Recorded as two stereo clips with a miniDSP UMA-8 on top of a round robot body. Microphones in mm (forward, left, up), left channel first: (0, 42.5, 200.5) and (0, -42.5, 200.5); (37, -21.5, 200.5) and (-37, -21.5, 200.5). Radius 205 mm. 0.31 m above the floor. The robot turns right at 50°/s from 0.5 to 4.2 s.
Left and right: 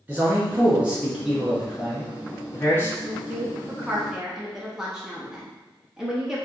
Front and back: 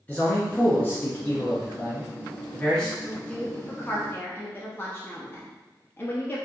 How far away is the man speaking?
About 1.0 m.